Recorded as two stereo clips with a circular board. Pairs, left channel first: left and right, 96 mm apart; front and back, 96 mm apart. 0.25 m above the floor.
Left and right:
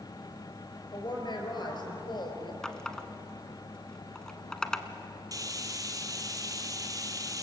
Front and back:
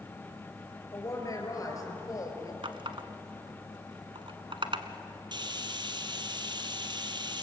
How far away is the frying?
About 1.8 m.